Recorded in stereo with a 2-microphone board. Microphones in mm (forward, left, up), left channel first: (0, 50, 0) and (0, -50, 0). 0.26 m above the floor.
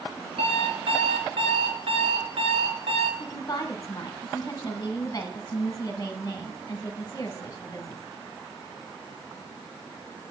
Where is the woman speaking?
35° left (ahead or behind), 1.2 m.